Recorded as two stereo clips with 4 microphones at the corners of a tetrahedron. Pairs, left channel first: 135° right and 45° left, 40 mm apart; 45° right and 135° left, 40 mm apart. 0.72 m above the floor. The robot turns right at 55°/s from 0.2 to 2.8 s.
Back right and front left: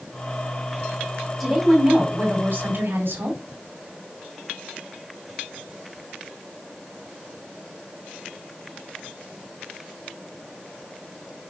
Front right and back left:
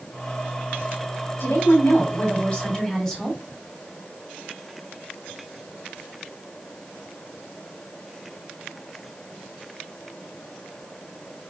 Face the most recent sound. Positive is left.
turn(degrees=30)